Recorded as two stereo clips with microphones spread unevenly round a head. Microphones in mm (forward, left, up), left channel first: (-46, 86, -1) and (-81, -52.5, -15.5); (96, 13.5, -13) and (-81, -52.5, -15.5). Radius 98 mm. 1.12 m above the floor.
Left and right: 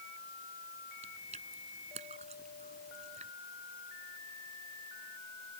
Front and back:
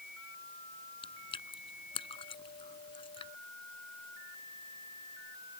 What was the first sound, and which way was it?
Chewing, 45° right.